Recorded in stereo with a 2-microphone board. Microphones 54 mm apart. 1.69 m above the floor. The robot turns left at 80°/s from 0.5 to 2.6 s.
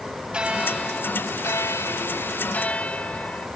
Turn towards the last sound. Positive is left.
turn(degrees=30)